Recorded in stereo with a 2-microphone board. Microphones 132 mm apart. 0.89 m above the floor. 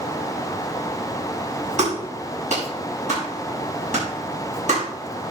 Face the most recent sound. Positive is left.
turn(degrees=-65)  # may be behind; listen again after turning